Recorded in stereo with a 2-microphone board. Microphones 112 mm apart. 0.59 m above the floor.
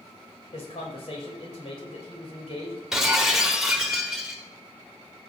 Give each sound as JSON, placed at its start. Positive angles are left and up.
{"t": 0.5, "sound": "a man speaking", "side_deg": 70, "distance_m": 3.0}
{"t": 2.9, "sound": "breaking glass", "side_deg": -5, "distance_m": 1.2}